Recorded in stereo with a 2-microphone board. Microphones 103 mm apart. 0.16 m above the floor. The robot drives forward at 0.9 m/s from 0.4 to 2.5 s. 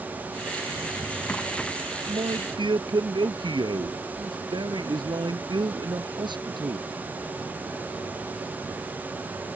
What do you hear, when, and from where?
0.8 s a drawer: 10° left (ahead or behind)
2.1 s a man speaking: 55° right (ahead or behind); by 6.9 s 50° right (ahead or behind)